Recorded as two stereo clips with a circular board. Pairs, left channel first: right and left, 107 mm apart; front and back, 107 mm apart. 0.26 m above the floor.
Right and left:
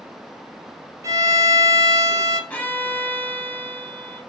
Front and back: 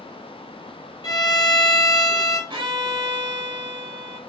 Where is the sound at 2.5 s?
160° right, 0.7 m.